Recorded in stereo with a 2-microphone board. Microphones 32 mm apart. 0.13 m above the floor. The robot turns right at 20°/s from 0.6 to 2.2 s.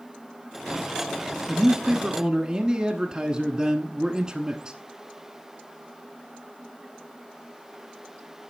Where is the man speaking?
20° right (ahead or behind), 1.1 m.